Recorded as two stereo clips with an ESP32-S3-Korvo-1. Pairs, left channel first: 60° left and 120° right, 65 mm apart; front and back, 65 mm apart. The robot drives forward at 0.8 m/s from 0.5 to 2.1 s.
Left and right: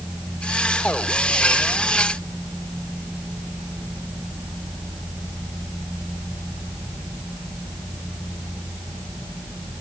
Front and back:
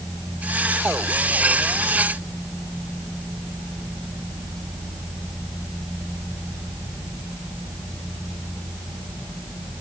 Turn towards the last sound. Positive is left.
No sound to turn to.